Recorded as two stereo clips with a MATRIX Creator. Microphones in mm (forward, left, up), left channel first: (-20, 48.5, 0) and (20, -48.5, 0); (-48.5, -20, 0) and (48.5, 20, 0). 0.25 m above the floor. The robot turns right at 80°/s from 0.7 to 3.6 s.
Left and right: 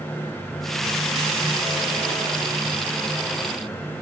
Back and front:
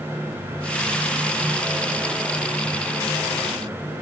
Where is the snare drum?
I don't hear a snare drum.